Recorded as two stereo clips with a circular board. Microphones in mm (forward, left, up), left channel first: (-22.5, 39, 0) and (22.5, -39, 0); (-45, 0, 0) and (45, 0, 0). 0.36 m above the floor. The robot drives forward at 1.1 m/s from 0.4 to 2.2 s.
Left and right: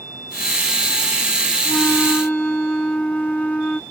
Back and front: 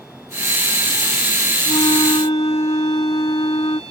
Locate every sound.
1.6 s a flute: 160° right; by 3.8 s 165° right